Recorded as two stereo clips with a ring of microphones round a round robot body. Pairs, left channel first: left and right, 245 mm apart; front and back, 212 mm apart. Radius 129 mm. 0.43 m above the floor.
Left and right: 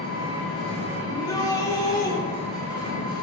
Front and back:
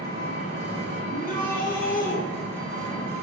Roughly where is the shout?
Ahead.